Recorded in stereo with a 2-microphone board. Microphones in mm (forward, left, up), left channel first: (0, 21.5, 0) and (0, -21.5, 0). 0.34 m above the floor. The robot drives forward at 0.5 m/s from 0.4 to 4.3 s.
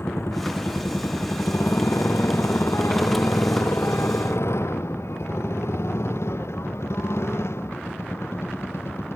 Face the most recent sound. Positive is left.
turn(degrees=75)  # may be behind; listen again after turning